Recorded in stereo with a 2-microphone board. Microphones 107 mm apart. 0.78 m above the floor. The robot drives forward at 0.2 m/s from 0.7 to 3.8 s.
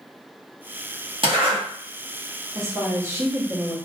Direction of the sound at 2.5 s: 30° right (ahead or behind).